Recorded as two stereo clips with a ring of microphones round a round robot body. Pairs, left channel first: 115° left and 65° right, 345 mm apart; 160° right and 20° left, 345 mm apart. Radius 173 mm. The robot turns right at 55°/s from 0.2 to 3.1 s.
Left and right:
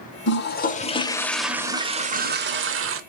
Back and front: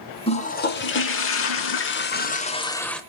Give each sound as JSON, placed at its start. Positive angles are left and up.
{"t": 0.3, "sound": "a toilet flushing", "azimuth_deg": 140, "distance_m": 0.9}